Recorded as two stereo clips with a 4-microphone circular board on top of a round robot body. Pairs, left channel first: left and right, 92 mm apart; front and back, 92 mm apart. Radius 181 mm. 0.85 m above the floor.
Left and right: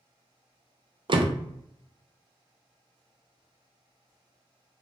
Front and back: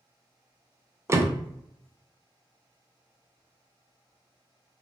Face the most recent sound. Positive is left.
turn(degrees=-120)